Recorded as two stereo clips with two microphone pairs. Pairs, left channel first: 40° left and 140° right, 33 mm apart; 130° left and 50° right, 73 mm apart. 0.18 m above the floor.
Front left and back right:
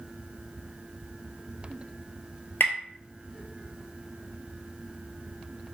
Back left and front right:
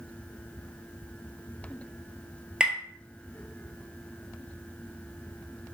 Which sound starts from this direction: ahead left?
Tapping, at 2.6 s.